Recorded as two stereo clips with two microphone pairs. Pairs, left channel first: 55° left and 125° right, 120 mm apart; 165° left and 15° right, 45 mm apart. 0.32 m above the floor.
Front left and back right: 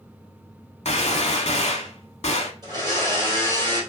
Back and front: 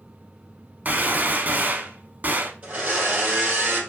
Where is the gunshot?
30° left, 0.7 m.